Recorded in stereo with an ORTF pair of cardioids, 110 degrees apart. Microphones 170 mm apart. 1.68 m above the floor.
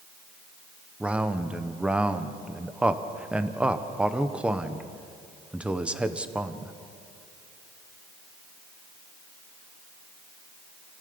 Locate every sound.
1.0 s a man speaking: 5° right, 1.4 m